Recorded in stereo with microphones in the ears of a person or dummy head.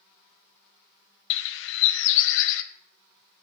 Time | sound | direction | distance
1.3 | a bird | 70° left (ahead or behind) | 0.5 m